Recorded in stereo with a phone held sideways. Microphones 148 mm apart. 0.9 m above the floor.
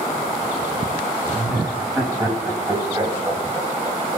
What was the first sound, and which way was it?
Laughter, 10° right (ahead or behind).